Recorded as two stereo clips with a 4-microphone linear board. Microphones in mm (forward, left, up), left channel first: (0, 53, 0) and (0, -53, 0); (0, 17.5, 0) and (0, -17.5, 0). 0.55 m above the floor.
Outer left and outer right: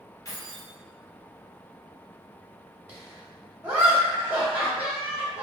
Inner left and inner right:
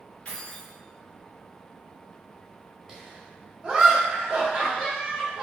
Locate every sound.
0.2 s keys jangling: 30° left (ahead or behind), 0.6 m
2.9 s laughter: 15° right (ahead or behind), 0.9 m